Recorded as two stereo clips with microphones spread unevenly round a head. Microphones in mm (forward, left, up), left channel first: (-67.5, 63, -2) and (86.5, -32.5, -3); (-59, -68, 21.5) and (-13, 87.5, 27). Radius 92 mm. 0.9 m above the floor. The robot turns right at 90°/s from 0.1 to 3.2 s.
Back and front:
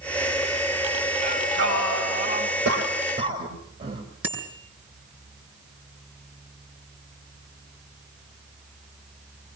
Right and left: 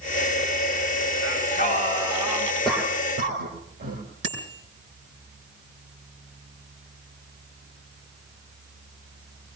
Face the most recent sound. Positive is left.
turn(degrees=50)